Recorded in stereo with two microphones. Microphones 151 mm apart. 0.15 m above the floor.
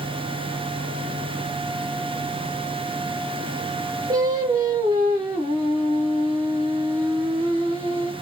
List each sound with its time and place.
4.1 s singing: 25° right (ahead or behind), 1.7 m